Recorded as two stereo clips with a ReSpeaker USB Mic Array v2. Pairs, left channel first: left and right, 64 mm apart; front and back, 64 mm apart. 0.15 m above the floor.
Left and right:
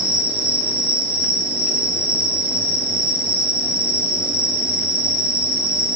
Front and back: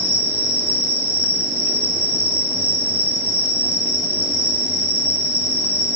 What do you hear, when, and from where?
0.0 s an insect: 150° right, 2.5 m